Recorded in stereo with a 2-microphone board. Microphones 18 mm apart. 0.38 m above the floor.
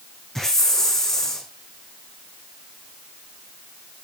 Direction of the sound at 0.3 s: 15° left (ahead or behind).